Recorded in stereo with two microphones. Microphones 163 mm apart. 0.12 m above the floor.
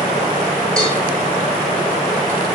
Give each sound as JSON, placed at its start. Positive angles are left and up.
{"t": 0.8, "sound": "a cowbell", "side_deg": 5, "distance_m": 0.9}